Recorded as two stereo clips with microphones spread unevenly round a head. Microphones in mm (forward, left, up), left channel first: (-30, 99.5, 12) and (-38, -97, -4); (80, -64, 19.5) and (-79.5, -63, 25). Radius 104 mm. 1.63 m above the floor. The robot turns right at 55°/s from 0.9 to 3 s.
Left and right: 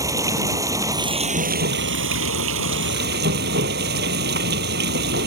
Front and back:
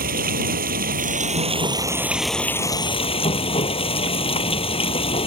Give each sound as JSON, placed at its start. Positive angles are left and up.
{"t": 0.0, "sound": "running water", "azimuth_deg": -170}